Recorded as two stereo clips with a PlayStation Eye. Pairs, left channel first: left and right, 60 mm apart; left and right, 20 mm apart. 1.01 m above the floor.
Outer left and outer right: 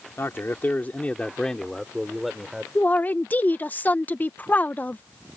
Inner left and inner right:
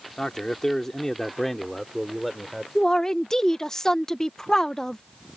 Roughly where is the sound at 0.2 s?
Left.